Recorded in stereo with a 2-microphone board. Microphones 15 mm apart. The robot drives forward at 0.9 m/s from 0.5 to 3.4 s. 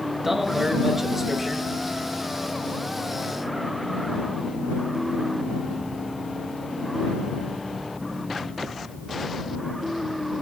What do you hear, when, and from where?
0.2 s a man speaking: 25° right (ahead or behind), 2 m; by 1.7 s 20° right (ahead or behind), 2.5 m